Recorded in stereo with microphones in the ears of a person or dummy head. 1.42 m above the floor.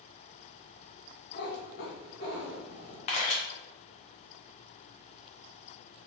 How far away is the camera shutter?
About 0.7 m.